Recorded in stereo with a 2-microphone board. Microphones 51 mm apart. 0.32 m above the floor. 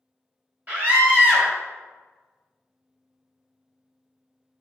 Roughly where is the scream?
Right.